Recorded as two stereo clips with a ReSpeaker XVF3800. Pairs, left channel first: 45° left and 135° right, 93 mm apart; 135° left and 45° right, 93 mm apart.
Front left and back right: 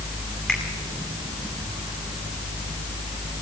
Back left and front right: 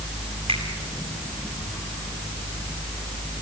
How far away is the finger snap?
About 8.5 m.